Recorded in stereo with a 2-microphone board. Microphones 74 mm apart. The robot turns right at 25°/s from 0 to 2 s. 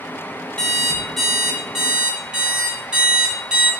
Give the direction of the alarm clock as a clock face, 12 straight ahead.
7 o'clock.